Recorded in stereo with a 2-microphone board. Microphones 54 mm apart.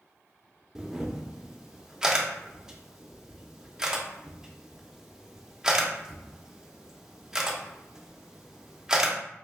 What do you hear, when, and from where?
0.8 s a camera shutter: 10° right (ahead or behind), 0.5 m